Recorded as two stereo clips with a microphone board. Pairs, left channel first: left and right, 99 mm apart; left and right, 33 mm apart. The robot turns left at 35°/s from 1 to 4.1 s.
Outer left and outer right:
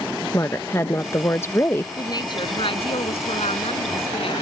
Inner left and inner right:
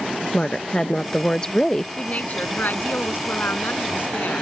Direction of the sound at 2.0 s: 145° left.